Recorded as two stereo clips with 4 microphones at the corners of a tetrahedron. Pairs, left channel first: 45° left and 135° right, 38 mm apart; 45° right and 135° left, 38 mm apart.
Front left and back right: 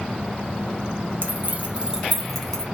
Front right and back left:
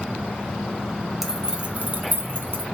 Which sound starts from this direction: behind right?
Keys jangling, at 1.2 s.